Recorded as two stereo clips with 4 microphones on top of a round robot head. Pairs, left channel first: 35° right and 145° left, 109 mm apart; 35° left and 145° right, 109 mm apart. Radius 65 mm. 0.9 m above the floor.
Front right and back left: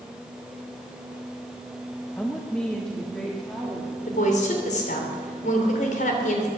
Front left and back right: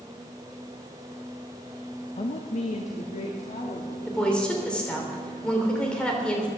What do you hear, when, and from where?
2.2 s a woman speaking: 40° left, 0.8 m; by 4.0 s 50° left, 2 m
4.1 s a woman speaking: 45° right, 3 m